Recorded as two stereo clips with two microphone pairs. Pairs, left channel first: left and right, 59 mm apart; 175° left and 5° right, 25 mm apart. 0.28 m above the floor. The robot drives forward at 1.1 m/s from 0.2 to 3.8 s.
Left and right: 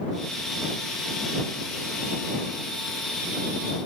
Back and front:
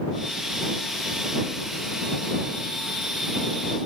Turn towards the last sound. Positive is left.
No sound to turn to.